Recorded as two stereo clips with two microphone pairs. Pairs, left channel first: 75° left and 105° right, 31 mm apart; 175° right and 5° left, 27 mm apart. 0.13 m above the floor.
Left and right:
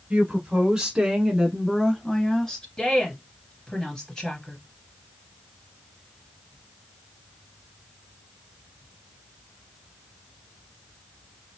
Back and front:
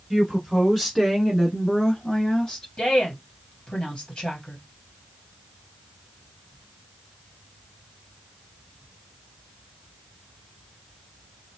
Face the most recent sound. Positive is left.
turn(degrees=145)